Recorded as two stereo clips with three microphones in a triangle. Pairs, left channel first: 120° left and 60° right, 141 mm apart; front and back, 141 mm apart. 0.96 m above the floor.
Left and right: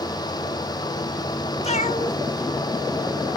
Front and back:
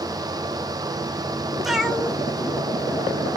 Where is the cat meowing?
90° left, 0.6 m; by 3.3 s 105° left, 1.9 m.